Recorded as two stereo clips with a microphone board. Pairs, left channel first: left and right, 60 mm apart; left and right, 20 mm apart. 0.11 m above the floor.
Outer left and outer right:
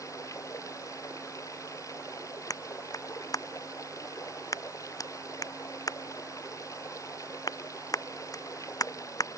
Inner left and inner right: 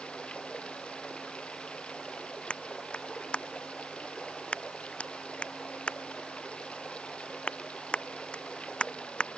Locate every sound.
0.0 s running water: 65° left (ahead or behind)
2.5 s a clap: 80° left